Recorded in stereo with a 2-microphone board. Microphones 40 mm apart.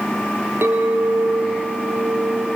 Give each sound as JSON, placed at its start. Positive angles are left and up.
{"t": 0.6, "sound": "a clink", "side_deg": -75, "distance_m": 3.0}